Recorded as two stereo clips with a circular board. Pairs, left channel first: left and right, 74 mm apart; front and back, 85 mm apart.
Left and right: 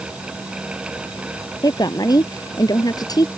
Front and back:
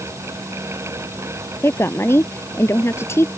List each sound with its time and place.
1.6 s a woman speaking: 60° left